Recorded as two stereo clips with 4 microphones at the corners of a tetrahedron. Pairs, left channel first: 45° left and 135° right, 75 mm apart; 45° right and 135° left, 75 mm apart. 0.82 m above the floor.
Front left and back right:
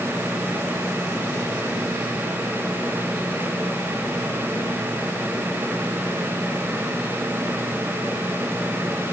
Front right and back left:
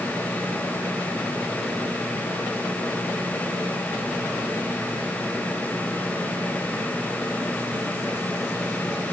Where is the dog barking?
No dog barking in this recording.